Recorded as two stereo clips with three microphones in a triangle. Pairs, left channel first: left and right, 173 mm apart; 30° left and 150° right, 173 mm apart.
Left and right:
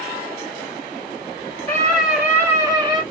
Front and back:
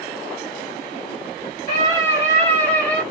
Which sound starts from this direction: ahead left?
A scream, at 1.7 s.